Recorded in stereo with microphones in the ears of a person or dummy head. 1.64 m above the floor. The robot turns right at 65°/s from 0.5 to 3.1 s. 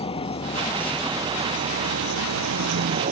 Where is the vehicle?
150° left; by 3.1 s 45° right.